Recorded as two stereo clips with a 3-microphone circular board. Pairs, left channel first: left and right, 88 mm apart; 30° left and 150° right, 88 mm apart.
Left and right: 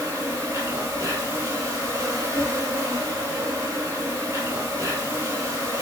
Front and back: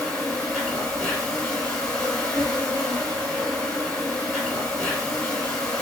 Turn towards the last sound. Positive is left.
turn(degrees=-45)